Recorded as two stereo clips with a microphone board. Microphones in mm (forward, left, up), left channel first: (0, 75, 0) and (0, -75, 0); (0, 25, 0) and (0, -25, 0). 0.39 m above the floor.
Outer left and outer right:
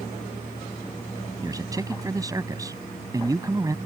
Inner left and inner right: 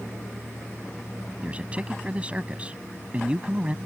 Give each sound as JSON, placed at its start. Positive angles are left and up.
{"t": 1.4, "sound": "a man speaking", "side_deg": -25}